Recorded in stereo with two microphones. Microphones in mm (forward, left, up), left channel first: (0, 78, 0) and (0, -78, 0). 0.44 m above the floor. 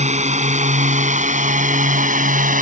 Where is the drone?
50° right (ahead or behind); by 2.6 s 60° right (ahead or behind).